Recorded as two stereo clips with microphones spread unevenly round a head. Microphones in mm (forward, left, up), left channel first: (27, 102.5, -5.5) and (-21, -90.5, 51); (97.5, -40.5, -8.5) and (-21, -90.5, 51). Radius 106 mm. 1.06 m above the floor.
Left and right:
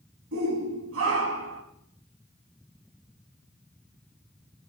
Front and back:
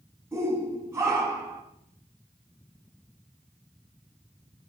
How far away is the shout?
About 8.5 m.